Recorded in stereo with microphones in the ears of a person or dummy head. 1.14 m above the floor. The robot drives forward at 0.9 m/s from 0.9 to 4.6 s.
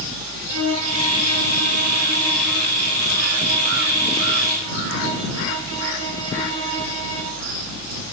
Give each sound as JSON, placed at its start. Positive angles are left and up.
{"t": 0.5, "sound": "a violin", "side_deg": -90, "distance_m": 2.5}